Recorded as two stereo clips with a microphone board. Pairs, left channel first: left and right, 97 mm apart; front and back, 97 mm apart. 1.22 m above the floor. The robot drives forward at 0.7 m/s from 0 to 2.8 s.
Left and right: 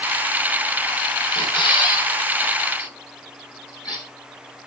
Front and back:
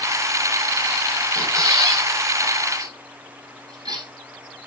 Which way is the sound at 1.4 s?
125° left.